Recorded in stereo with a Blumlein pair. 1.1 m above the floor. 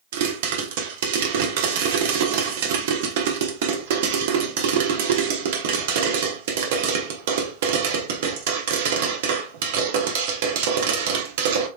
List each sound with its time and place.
0.1 s a pop: 55° right, 1.1 m